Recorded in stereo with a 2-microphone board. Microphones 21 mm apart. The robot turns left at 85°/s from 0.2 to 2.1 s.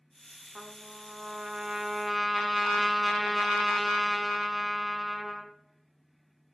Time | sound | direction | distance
0.6 | a trumpet | 40° right | 1.9 m